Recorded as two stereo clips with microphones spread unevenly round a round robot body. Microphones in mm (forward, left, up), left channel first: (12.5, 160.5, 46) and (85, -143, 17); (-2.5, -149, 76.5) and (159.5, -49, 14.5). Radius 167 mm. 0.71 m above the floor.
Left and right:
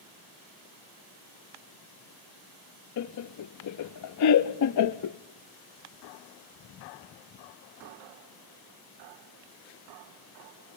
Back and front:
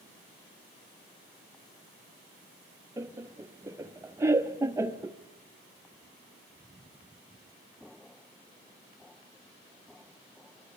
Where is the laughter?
90° left, 0.6 m.